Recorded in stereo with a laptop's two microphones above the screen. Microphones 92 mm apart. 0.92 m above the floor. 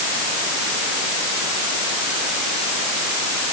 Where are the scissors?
No scissors in this recording.